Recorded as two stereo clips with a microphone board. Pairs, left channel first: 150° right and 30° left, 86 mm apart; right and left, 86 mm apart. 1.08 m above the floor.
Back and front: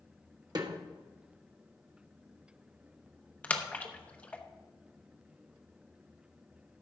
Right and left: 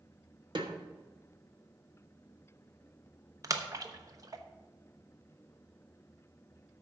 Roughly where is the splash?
Behind left.